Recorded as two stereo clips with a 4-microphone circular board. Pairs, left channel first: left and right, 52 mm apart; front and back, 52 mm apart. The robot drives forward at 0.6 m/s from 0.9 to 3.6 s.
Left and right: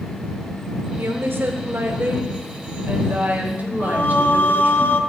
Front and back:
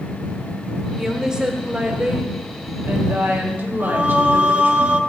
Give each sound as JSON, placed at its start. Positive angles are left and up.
{"t": 1.0, "sound": "a woman speaking", "azimuth_deg": -100, "distance_m": 2.0}
{"t": 3.8, "sound": "singing", "azimuth_deg": 120, "distance_m": 0.8}